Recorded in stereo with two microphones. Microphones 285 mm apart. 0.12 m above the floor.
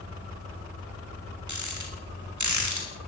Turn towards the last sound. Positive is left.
turn(degrees=-85)